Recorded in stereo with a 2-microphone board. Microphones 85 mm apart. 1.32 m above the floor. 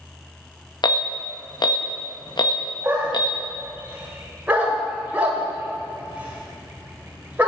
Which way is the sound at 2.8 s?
20° right (ahead or behind).